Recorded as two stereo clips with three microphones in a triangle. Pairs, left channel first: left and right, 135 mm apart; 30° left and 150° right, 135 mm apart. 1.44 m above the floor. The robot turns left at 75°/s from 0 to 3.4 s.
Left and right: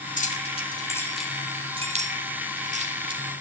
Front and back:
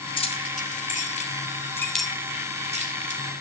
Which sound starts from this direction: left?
Keys jangling, at 0.2 s.